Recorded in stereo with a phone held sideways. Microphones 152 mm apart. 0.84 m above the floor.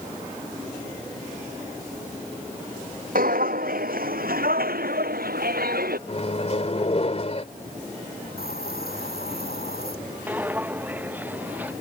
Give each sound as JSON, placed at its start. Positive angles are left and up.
{"t": 3.1, "sound": "footsteps", "side_deg": -70}
{"t": 6.1, "sound": "a microwave", "side_deg": 45}
{"t": 8.4, "sound": "a hiss", "side_deg": 85}
{"t": 10.3, "sound": "footsteps", "side_deg": -10}